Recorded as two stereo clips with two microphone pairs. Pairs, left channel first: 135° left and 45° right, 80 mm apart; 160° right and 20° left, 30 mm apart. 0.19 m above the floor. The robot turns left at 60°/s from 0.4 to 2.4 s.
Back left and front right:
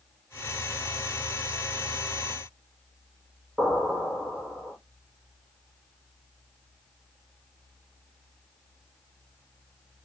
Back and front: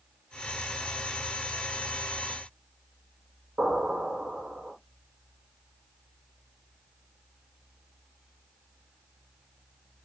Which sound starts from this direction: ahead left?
An explosion, at 3.6 s.